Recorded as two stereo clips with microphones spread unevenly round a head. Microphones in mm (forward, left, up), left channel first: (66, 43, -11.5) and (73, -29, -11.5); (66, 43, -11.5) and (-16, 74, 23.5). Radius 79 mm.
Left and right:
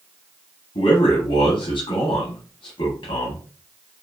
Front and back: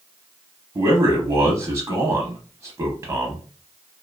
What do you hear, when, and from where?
0.8 s a man speaking: 110° left, 0.7 m